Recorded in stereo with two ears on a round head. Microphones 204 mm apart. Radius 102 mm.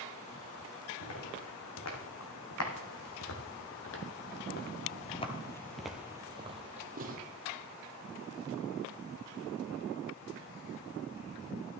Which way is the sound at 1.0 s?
75° left (ahead or behind).